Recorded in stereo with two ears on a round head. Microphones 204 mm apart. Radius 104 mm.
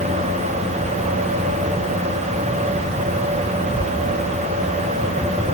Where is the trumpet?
I don't hear a trumpet.